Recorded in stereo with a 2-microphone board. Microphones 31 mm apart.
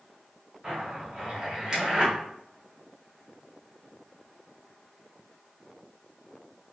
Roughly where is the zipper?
Right.